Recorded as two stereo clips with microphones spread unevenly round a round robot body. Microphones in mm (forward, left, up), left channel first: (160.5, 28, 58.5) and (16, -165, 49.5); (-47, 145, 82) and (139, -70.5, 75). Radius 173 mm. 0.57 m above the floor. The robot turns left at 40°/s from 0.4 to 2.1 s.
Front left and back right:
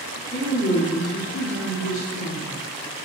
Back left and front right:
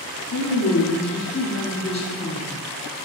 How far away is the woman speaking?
About 1.6 m.